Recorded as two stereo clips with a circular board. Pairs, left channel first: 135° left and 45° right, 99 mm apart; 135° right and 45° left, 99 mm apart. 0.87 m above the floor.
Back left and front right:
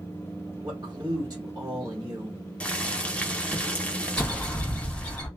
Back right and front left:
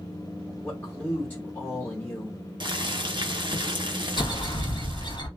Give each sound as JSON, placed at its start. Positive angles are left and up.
{"t": 0.6, "sound": "a man speaking", "azimuth_deg": -75, "distance_m": 1.3}
{"t": 2.6, "sound": "boiling", "azimuth_deg": 60, "distance_m": 0.6}
{"t": 4.2, "sound": "a bird", "azimuth_deg": -145, "distance_m": 1.6}